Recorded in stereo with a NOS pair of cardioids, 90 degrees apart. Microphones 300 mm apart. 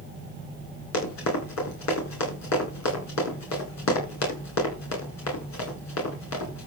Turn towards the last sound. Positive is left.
turn(degrees=65)